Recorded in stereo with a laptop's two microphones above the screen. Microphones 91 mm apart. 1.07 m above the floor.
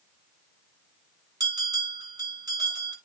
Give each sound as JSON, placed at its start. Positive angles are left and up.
{"t": 1.4, "sound": "a bell", "side_deg": -40, "distance_m": 8.0}